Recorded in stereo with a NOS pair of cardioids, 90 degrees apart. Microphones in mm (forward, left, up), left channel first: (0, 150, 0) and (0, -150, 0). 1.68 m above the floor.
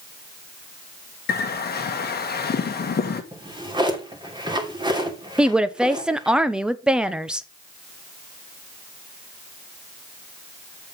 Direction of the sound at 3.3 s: 15° right.